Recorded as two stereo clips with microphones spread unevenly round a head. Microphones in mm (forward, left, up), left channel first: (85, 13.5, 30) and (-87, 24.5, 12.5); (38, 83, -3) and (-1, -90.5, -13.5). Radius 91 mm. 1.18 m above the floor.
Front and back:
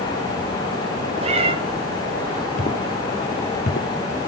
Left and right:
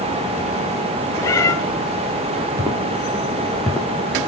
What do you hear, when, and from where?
1.2 s a cat meowing: 135° left, 1.0 m
2.6 s footsteps: 30° right, 1.6 m; by 4.3 s straight ahead, 2.0 m